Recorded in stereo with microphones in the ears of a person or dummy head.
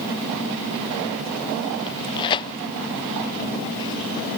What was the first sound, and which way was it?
Tearing paper, 20° left (ahead or behind).